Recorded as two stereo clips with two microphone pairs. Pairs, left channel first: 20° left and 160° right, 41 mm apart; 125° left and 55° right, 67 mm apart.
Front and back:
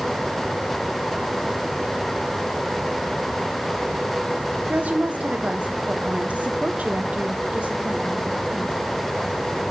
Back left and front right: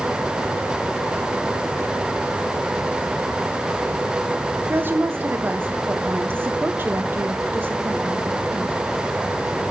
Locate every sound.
4.7 s a woman speaking: 110° right, 0.9 m